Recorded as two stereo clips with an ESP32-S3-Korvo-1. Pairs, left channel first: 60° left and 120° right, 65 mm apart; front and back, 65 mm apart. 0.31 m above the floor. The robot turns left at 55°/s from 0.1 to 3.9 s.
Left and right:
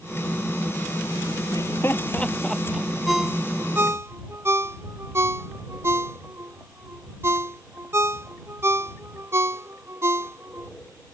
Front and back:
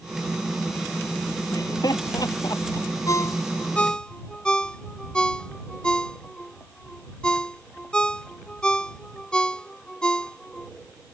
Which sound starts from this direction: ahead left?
Laughter, at 1.5 s.